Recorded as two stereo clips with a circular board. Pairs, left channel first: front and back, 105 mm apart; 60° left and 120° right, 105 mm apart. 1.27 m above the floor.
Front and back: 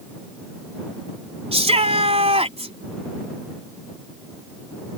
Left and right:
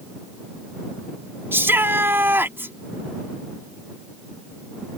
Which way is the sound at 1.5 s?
170° left.